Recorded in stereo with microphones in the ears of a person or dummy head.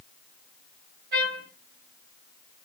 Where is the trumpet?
45° right (ahead or behind), 1.9 m.